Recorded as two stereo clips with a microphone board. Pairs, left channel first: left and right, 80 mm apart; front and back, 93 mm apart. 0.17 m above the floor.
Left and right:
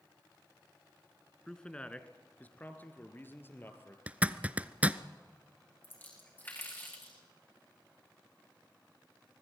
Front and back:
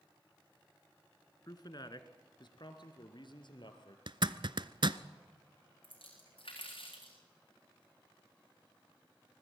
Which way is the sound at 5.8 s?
25° left.